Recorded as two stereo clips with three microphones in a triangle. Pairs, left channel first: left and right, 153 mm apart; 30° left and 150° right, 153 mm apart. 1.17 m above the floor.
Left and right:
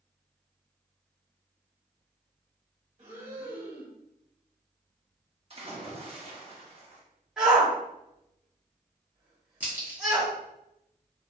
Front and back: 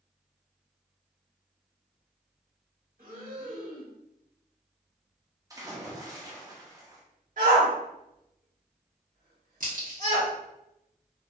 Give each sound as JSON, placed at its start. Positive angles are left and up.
{"t": 3.0, "sound": "breathing", "azimuth_deg": -140, "distance_m": 1.3}
{"t": 5.5, "sound": "a splash", "azimuth_deg": -95, "distance_m": 0.8}
{"t": 7.4, "sound": "a shout", "azimuth_deg": -175, "distance_m": 1.5}
{"t": 9.6, "sound": "a crack", "azimuth_deg": -170, "distance_m": 1.2}